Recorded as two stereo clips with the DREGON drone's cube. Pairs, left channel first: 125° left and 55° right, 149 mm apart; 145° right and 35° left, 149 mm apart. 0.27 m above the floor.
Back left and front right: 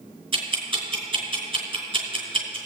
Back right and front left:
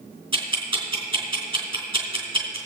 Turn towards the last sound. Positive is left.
turn(degrees=-10)